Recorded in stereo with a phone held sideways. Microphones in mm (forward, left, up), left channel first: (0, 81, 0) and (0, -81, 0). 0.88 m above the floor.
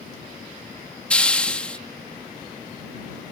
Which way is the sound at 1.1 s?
5° left (ahead or behind).